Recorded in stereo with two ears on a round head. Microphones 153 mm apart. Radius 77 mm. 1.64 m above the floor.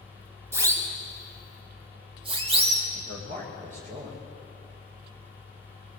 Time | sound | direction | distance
0.5 | a siren | 20° right (ahead or behind) | 3 m
2.9 | a man speaking | 55° right (ahead or behind) | 6 m